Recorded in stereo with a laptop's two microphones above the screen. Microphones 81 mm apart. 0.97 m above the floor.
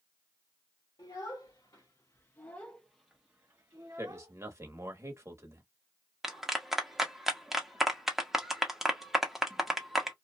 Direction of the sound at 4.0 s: 40° right (ahead or behind).